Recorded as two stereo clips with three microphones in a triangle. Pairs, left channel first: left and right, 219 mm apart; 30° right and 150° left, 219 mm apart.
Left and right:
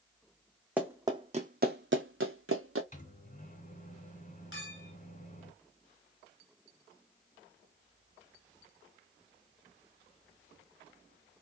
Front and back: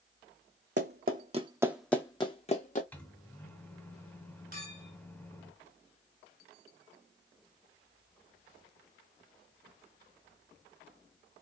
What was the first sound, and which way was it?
Running footsteps, 175° right.